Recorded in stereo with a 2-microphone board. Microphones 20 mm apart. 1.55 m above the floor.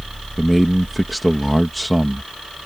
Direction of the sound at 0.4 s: 5° left (ahead or behind).